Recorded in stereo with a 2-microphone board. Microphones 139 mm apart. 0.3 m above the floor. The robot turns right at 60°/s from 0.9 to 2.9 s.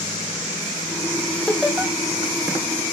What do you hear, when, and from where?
1.5 s laughter: 10° left (ahead or behind), 1.8 m; by 1.9 s 15° right (ahead or behind), 1.8 m